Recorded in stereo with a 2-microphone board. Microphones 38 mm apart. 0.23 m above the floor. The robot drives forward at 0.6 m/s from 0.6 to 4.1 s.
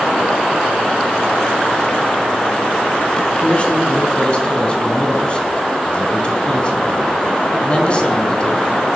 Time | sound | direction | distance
3.4 | a man speaking | 30° left (ahead or behind) | 2.0 m